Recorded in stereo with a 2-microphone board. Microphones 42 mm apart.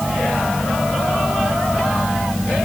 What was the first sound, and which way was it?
Only background noise.